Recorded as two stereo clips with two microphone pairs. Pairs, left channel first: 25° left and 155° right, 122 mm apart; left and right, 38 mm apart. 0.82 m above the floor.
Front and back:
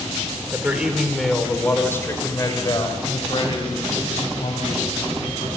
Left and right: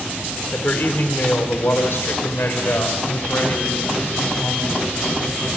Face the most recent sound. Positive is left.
turn(degrees=60)